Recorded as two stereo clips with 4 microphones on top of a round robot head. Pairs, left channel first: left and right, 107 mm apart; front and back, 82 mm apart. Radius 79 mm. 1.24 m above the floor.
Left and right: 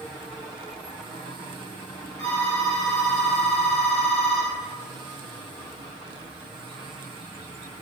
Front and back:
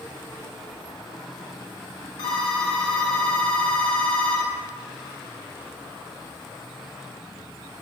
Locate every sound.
2.2 s a phone ringing: 25° left, 2.5 m